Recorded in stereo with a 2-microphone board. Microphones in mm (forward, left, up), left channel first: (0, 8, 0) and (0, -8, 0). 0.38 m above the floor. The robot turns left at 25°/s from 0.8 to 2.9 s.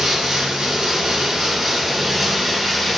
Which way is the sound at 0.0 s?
130° right.